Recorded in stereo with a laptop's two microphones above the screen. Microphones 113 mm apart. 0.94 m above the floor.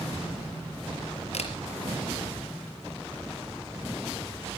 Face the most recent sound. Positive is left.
turn(degrees=75)  # may be behind; listen again after turning